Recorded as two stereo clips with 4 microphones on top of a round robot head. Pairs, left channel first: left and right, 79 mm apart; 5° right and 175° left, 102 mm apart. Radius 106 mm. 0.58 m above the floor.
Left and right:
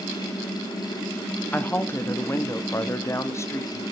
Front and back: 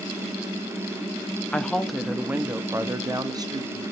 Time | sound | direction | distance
1.5 | a woman speaking | 60° left | 1.0 m